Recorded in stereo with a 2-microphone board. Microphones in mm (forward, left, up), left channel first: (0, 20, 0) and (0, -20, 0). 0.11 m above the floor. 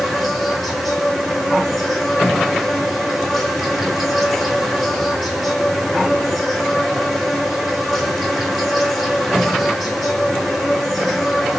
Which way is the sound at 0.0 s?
5° right (ahead or behind).